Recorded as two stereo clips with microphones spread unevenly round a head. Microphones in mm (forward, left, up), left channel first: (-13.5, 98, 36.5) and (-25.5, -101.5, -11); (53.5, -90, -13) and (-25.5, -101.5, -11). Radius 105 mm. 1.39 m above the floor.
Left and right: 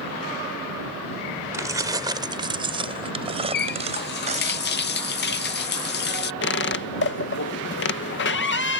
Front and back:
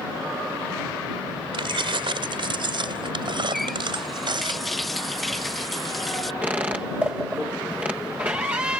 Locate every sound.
1.5 s keys jangling: 170° right; by 4.5 s 155° right
3.5 s a running tap: 100° left
6.4 s a squeak: 110° left